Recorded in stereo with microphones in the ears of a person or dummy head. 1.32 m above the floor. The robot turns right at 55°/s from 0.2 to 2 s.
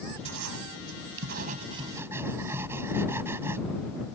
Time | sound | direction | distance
0.2 | writing | 110° right | ?